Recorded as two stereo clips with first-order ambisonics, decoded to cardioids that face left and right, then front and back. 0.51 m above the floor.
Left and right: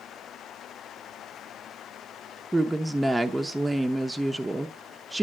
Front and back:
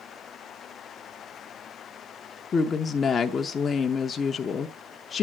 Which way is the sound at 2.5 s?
25° right.